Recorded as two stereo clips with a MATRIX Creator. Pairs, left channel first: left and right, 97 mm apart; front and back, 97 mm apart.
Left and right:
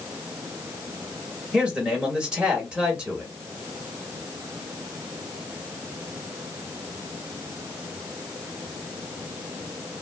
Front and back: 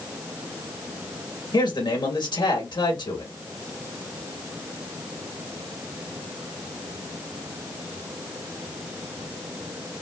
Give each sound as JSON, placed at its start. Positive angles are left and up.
{"t": 1.5, "sound": "a man speaking", "azimuth_deg": -15, "distance_m": 2.0}